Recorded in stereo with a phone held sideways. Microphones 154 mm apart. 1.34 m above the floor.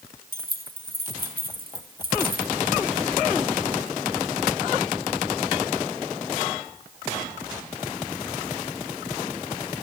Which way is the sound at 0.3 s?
75° right (ahead or behind).